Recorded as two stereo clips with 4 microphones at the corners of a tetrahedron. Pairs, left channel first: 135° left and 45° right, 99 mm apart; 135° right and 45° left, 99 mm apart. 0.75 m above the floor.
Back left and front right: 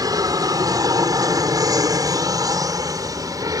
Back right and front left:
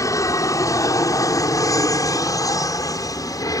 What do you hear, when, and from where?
0.0 s an aircraft: 85° right; by 3.6 s 90° right